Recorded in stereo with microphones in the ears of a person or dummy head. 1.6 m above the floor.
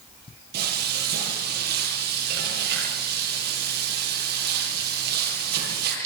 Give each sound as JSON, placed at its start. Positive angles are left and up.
{"t": 0.5, "sound": "frying", "side_deg": -60, "distance_m": 9.5}